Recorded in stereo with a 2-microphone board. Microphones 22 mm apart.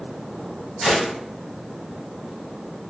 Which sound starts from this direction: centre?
A gunshot, at 0.8 s.